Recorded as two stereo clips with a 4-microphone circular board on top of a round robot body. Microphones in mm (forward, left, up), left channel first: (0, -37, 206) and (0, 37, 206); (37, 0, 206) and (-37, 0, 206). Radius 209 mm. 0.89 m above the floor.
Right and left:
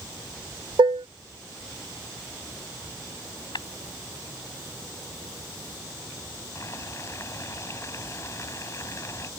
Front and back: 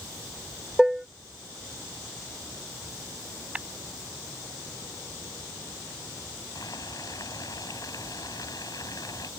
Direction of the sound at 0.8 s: 95° left.